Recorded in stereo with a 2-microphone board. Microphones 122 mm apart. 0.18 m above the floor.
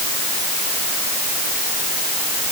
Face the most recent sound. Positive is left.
No sound to turn to.